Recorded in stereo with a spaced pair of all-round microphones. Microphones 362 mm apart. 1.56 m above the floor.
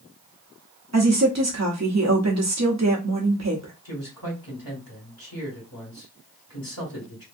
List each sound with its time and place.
0.9 s a woman speaking: 45° right (ahead or behind), 0.8 m
3.9 s a man speaking: 65° left (ahead or behind), 1.8 m